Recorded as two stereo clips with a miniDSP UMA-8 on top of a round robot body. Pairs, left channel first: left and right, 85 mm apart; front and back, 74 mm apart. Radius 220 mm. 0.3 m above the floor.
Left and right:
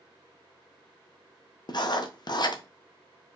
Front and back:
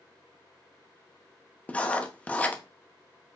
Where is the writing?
70° left, 0.8 m.